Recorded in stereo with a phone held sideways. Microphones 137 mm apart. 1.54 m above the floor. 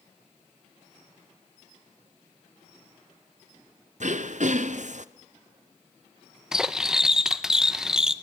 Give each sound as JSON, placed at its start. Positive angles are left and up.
{"t": 4.0, "sound": "throat clearing", "side_deg": -65, "distance_m": 0.7}
{"t": 6.5, "sound": "cutlery clinking", "side_deg": -5, "distance_m": 0.7}